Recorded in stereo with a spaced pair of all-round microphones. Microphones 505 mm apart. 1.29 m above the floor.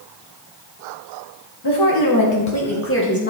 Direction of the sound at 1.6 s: 50° left (ahead or behind).